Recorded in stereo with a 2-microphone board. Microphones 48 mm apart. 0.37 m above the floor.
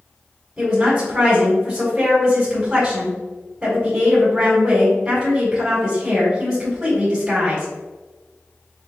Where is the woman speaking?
15° right (ahead or behind), 1.8 m.